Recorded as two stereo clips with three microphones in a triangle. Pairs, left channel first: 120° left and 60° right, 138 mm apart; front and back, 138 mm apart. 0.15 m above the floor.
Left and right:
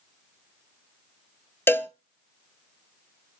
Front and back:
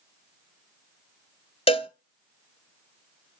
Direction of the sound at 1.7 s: 45° left.